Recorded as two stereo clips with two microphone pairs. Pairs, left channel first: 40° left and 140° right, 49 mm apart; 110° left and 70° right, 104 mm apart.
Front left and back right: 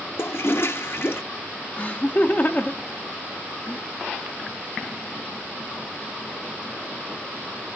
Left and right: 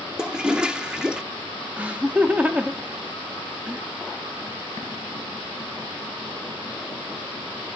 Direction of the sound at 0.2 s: 10° left.